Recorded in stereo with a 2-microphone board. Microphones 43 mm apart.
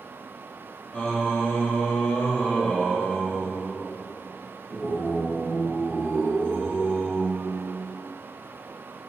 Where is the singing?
35° left (ahead or behind), 1.1 m.